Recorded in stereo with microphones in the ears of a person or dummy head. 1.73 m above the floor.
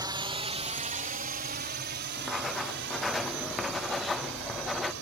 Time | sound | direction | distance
0.0 | a drone | 15° right (ahead or behind) | ?
2.2 | writing | 5° left (ahead or behind) | ?